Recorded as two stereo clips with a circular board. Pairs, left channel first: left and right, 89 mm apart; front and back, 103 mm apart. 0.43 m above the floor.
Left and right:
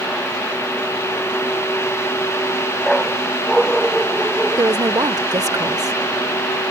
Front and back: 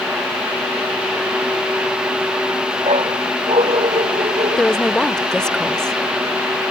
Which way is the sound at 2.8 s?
Straight behind.